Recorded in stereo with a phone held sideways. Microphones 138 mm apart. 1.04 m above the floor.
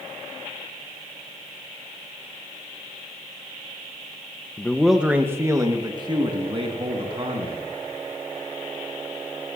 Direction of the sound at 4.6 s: 15° left (ahead or behind).